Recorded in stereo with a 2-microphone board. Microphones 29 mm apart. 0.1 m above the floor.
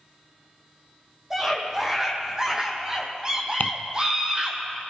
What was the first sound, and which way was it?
A scream, 15° right (ahead or behind).